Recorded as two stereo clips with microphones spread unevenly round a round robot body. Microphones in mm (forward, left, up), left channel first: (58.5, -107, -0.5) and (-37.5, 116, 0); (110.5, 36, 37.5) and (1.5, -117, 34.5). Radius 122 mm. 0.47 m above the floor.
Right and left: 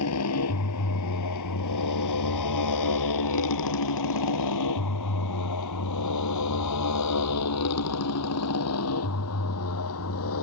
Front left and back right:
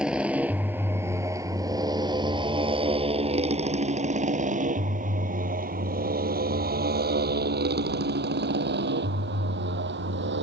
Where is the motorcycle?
40° right; by 10.4 s 100° right.